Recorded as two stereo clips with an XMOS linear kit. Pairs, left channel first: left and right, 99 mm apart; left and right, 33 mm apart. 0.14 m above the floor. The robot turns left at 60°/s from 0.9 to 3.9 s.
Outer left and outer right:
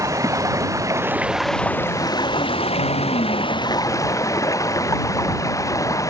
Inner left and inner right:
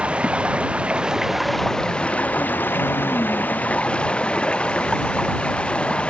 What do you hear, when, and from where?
0.0 s running water: 145° right; by 6.1 s 35° left